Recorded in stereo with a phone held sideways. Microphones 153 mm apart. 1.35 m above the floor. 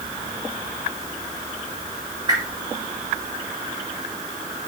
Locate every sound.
2.3 s a whoosh: 30° right (ahead or behind), 3 m